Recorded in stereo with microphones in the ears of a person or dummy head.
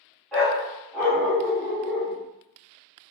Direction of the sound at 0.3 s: 5° left (ahead or behind).